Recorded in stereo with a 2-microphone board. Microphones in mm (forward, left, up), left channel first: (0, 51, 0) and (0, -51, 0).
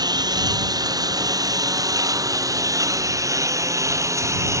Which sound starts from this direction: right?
A lawn mower, at 0.0 s.